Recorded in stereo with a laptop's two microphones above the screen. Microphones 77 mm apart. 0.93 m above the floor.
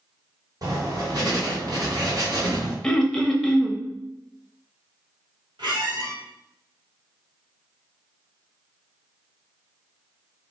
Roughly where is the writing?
Right.